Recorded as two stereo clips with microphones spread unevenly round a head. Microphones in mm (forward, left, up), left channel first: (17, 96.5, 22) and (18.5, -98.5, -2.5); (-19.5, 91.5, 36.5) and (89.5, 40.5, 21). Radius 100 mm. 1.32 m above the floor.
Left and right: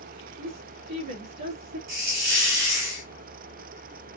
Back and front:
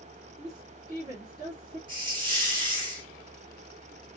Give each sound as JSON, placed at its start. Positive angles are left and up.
{"t": 0.4, "sound": "a woman speaking", "azimuth_deg": -95, "distance_m": 2.5}
{"t": 1.9, "sound": "a hiss", "azimuth_deg": -90, "distance_m": 3.0}